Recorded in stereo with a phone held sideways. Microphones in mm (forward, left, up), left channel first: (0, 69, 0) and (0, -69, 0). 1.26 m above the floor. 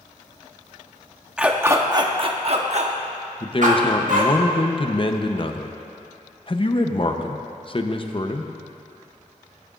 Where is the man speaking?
40° left (ahead or behind), 0.8 m.